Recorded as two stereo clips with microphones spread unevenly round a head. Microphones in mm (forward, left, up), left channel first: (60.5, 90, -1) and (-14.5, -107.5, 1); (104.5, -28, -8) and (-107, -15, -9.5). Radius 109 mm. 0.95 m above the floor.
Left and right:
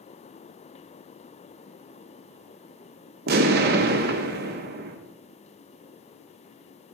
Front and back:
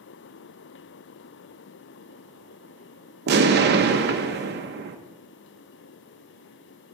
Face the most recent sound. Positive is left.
turn(degrees=-150)